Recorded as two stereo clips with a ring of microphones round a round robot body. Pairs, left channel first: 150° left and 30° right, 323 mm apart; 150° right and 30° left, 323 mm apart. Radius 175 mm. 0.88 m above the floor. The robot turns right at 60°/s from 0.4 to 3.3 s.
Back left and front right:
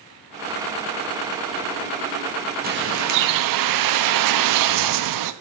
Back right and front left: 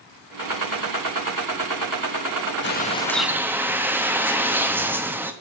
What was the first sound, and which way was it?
A bird, 95° right.